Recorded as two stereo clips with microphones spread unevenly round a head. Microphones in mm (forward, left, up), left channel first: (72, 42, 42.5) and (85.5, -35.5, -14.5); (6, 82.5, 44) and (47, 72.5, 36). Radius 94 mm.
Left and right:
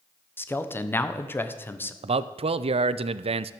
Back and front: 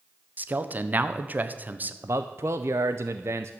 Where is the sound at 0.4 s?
35° left, 1.2 m.